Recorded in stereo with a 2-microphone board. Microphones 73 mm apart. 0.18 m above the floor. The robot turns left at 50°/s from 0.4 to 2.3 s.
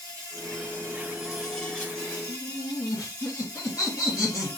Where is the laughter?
55° left (ahead or behind), 3 m.